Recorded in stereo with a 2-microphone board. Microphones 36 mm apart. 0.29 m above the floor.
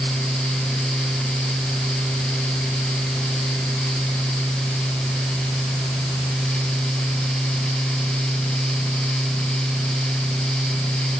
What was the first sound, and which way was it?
Only background noise.